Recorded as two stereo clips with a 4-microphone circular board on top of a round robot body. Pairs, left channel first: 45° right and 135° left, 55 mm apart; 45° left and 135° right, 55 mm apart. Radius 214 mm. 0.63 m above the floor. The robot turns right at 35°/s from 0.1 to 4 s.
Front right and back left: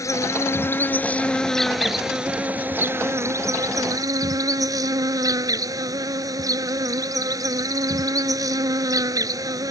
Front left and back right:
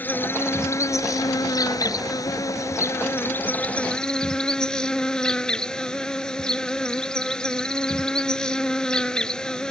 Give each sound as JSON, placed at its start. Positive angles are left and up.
{"t": 0.0, "sound": "an insect", "azimuth_deg": -15}